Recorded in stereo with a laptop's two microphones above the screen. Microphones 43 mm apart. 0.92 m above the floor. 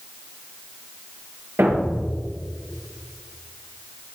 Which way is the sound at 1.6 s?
65° right (ahead or behind).